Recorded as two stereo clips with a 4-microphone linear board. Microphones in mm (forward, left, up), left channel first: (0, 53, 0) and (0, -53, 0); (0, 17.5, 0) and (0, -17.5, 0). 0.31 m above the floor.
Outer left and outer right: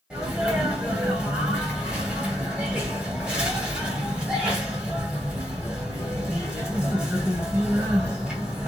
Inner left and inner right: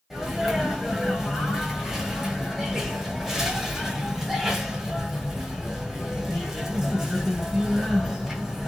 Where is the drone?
I don't hear a drone.